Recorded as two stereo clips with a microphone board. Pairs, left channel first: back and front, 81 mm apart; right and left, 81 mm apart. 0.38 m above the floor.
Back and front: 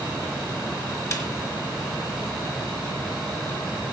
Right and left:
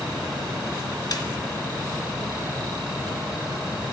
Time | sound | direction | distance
1.1 | a snare drum | 130° right | 3.5 m